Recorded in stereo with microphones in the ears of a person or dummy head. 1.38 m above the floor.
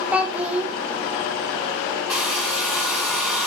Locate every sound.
0.1 s a child speaking: 5° right (ahead or behind), 0.7 m
2.1 s a hair dryer: 5° right (ahead or behind), 2.5 m